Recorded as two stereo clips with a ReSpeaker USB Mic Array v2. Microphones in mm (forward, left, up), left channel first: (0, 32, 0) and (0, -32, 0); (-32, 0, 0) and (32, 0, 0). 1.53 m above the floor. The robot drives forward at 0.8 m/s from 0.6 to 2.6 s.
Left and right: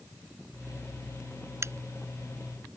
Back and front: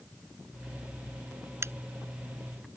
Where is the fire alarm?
I don't hear a fire alarm.